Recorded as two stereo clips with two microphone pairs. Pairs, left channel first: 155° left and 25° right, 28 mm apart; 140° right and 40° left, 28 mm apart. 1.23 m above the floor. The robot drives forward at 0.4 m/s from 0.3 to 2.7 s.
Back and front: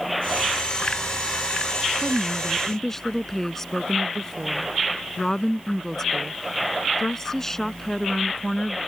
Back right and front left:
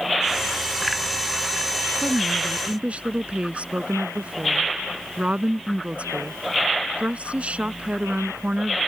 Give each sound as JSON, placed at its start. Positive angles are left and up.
{"t": 2.0, "sound": "a woman speaking", "azimuth_deg": 75}